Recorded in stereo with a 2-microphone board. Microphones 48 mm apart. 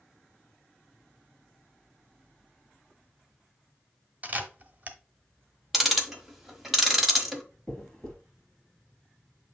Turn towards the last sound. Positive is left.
turn(degrees=15)  # may be behind; listen again after turning